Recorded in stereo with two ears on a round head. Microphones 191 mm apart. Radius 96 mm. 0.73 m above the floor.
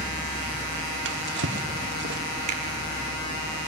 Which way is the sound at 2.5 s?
30° right (ahead or behind).